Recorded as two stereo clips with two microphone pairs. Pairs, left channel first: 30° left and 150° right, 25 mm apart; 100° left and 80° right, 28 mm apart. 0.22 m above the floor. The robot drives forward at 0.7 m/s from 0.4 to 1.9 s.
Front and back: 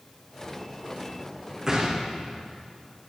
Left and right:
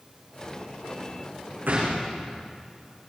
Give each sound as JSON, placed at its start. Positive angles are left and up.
{"t": 1.7, "sound": "a gunshot", "azimuth_deg": -90, "distance_m": 9.5}